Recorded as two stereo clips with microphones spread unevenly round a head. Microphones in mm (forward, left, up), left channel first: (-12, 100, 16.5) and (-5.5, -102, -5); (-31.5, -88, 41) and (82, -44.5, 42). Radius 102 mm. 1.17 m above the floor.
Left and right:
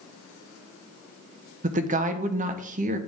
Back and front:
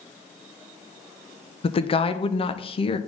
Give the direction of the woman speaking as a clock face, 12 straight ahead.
4 o'clock.